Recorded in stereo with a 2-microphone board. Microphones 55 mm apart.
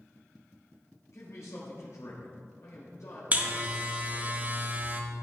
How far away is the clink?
I don't hear a clink.